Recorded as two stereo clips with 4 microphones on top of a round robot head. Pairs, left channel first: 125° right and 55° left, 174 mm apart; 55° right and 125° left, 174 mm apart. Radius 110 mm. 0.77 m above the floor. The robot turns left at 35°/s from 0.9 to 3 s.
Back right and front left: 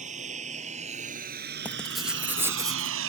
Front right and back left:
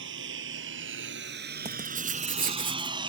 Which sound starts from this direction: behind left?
Writing, at 1.6 s.